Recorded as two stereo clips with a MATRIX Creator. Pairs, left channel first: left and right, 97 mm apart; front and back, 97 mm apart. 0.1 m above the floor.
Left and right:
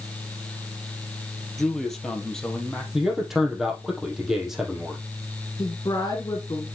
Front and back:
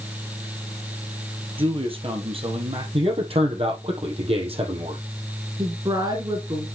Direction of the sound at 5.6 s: 140° left.